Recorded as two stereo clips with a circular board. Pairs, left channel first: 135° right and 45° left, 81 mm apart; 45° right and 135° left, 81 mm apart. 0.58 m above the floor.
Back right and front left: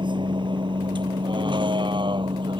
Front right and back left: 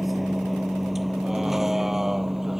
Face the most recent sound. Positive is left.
turn(degrees=50)